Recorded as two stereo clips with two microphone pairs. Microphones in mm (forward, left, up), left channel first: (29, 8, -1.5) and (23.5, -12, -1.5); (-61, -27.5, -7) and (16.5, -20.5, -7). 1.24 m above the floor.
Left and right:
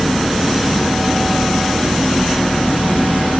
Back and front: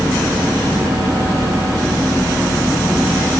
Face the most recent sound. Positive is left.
No sound to turn to.